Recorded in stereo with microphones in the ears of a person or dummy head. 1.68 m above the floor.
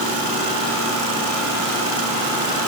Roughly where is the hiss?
I don't hear a hiss.